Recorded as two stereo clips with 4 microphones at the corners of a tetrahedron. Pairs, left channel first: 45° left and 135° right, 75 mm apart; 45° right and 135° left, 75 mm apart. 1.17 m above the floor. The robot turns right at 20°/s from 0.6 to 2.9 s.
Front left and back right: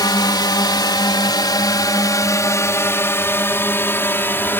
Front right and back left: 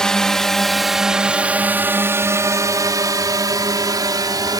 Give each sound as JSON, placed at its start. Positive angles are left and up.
{"t": 0.0, "sound": "a drone", "azimuth_deg": 35}